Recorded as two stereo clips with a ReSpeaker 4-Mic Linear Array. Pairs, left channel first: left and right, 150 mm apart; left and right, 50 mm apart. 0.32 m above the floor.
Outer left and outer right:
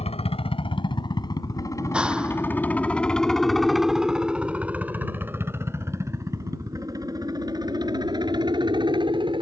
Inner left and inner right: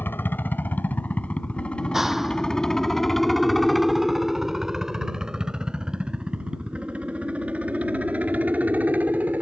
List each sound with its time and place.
0.0 s a helicopter: 40° left (ahead or behind); by 9.4 s 30° right (ahead or behind)
1.8 s a clap: 5° right (ahead or behind)